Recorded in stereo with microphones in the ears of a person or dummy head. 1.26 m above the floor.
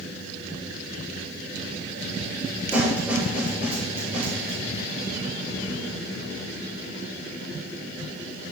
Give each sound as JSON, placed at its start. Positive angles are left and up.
{"t": 2.7, "sound": "a snare drum", "side_deg": -10, "distance_m": 5.5}